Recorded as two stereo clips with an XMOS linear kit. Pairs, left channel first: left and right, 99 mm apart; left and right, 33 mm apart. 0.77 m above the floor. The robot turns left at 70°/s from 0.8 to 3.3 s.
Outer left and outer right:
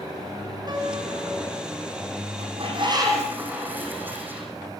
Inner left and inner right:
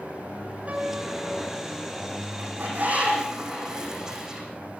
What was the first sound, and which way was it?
A piano, 45° right.